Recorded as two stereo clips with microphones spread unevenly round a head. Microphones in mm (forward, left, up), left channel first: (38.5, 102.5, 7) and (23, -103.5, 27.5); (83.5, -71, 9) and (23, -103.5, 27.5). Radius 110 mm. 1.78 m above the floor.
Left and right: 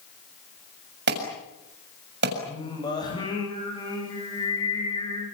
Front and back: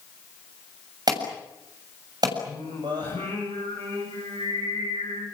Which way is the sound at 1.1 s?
140° right.